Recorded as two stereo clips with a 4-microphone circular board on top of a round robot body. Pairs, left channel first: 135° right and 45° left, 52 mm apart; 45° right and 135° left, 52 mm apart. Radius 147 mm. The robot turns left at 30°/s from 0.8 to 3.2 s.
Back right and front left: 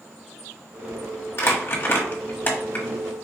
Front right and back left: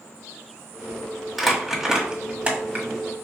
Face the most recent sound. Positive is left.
turn(degrees=165)